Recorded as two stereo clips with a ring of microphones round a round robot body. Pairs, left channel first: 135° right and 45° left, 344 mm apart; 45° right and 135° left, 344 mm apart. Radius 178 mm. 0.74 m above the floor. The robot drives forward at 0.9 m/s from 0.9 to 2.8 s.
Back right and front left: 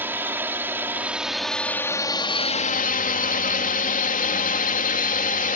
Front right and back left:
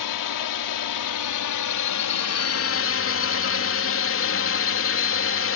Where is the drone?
40° right; by 5.5 s 80° right.